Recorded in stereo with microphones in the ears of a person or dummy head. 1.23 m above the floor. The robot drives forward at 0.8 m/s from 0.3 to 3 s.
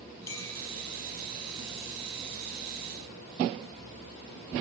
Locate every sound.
0.3 s a clink: 15° left (ahead or behind), 6 m; by 0.5 s 20° left (ahead or behind), 5.5 m